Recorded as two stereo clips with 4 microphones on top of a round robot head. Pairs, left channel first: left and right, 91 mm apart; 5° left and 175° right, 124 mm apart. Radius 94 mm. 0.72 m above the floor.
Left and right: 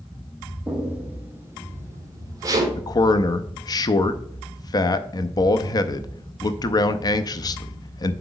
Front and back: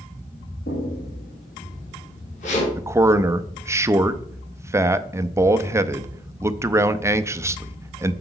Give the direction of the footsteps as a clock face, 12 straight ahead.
12 o'clock.